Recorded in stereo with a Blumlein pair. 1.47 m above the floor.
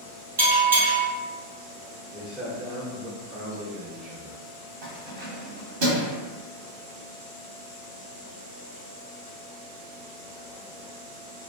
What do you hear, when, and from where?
0.4 s a bell: 65° right, 1.1 m
2.1 s a man speaking: 15° right, 0.8 m
4.8 s keys jangling: 50° right, 1.0 m